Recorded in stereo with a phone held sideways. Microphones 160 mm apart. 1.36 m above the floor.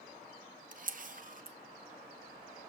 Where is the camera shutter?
55° right (ahead or behind), 0.7 m.